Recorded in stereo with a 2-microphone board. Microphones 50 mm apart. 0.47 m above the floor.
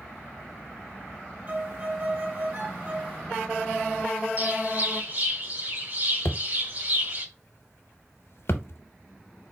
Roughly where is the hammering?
Left.